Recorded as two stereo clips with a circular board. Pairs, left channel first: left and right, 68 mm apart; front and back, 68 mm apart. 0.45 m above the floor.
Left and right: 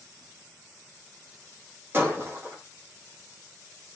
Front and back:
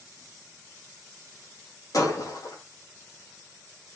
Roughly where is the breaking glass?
Ahead right.